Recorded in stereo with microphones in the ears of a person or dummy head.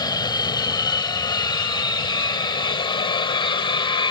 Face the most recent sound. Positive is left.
turn(degrees=25)  # may be behind; listen again after turning